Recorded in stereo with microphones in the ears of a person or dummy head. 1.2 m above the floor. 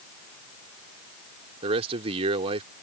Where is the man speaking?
30° right (ahead or behind).